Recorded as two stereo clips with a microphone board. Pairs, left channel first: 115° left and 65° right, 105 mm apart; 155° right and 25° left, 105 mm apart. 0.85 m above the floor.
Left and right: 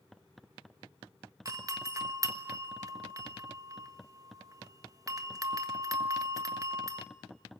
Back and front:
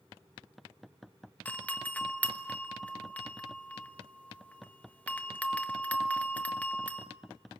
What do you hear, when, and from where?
1.4 s a doorbell: 90° right, 1.2 m